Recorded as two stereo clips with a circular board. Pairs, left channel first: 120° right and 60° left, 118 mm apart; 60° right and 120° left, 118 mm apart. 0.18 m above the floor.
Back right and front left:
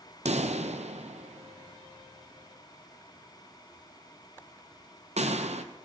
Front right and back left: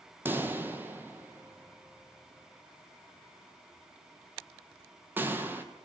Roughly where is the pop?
Ahead left.